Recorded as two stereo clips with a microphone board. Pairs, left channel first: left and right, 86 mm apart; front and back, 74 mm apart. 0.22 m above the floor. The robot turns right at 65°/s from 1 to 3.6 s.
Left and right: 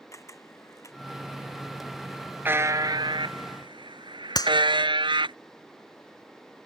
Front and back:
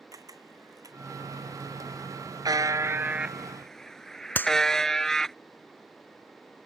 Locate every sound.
0.1 s a camera shutter: 145° left
2.5 s a buzzer: 160° right; by 5.3 s 85° right
4.3 s a clap: 60° left